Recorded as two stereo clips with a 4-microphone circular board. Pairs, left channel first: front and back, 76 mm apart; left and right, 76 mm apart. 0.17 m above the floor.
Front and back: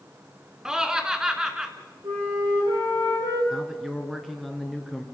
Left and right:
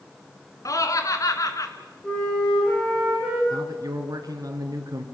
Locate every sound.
0.7 s laughter: 100° left, 2 m
2.0 s a flute: 170° left, 9.5 m
3.5 s a man speaking: 95° right, 2.5 m